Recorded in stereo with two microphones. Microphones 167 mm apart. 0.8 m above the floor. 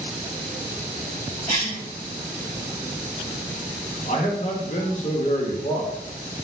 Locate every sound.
1.5 s a cough: 45° left (ahead or behind), 1.4 m
4.1 s a man speaking: 45° left (ahead or behind), 0.7 m